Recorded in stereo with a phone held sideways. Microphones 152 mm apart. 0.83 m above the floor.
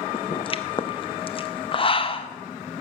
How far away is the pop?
About 0.6 m.